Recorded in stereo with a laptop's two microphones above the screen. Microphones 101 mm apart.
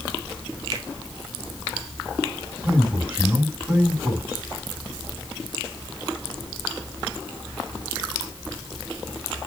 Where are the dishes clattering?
I don't hear dishes clattering.